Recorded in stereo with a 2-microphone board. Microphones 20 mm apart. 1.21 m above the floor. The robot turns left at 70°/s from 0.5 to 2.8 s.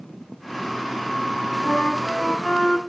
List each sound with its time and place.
1.6 s a flute: 95° left, 2 m; by 2.8 s 15° left, 2 m